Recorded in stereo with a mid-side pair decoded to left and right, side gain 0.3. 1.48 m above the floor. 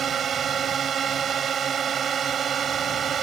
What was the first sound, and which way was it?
A drone, 70° right.